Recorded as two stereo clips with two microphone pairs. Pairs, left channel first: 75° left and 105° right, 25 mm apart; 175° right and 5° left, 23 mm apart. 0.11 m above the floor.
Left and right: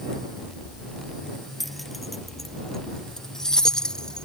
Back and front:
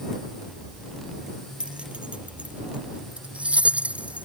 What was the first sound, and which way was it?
Keys jangling, 25° right.